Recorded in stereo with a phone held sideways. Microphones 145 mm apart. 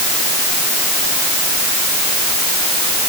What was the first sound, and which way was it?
Only background noise.